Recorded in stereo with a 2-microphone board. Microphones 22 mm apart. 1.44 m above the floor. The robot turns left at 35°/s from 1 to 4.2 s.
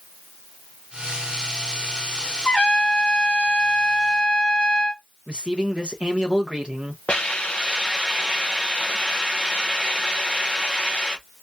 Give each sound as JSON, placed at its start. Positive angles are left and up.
{"t": 2.5, "sound": "a trumpet", "azimuth_deg": 125, "distance_m": 1.2}
{"t": 5.3, "sound": "a man speaking", "side_deg": -50, "distance_m": 1.2}
{"t": 7.1, "sound": "a hiss", "side_deg": 70, "distance_m": 1.3}